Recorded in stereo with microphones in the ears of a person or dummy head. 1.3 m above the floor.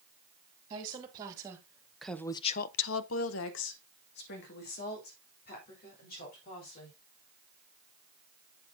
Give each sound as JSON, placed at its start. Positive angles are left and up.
{"t": 0.7, "sound": "a woman speaking", "side_deg": -25, "distance_m": 2.5}